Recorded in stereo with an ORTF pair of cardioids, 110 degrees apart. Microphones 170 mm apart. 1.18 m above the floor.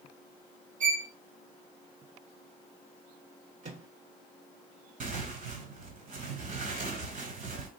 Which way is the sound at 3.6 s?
45° right.